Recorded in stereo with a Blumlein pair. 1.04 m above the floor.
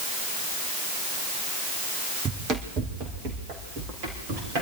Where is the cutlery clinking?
I don't hear cutlery clinking.